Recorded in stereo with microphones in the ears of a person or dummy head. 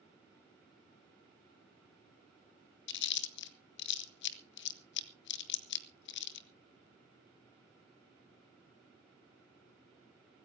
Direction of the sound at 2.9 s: 60° left (ahead or behind).